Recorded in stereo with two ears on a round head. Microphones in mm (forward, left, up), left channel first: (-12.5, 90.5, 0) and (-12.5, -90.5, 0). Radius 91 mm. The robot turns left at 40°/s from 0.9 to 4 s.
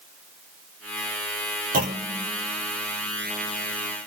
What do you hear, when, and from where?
1.7 s a clunk: 45° right (ahead or behind), 1.7 m; by 2.3 s 25° right (ahead or behind), 1.7 m